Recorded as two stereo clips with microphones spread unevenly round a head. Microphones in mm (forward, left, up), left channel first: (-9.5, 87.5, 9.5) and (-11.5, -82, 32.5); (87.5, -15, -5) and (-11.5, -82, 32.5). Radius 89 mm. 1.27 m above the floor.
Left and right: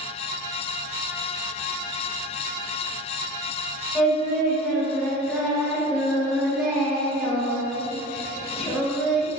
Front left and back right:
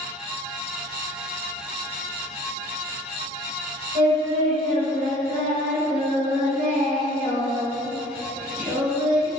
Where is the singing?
175° right, 3 m.